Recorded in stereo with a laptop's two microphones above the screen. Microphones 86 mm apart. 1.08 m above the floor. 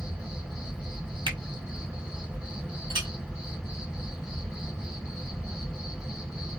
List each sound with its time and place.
0.0 s an insect: 10° right (ahead or behind), 1.3 m
1.3 s a finger snap: 75° right (ahead or behind), 1.5 m
2.9 s a clink: 85° right, 1.2 m